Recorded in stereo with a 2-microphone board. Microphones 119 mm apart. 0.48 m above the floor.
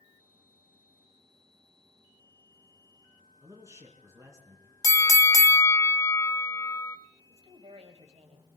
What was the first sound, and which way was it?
A man speaking, 25° right (ahead or behind).